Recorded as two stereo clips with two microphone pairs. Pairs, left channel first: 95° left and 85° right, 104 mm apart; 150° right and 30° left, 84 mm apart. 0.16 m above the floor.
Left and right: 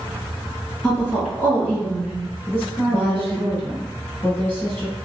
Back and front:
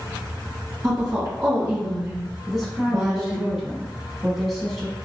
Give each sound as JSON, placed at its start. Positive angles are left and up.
{"t": 0.8, "sound": "a woman speaking", "azimuth_deg": 15, "distance_m": 1.8}
{"t": 2.5, "sound": "a woman speaking", "azimuth_deg": 115, "distance_m": 1.2}